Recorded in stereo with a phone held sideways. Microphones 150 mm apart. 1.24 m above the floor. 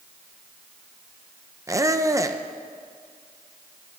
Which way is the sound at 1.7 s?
20° right (ahead or behind).